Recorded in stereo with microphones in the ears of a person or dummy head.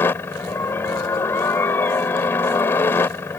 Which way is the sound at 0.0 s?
15° left (ahead or behind).